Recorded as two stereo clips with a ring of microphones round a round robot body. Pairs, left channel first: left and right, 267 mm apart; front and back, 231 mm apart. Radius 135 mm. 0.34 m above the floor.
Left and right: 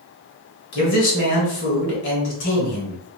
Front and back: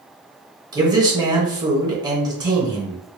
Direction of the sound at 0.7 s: 115° left.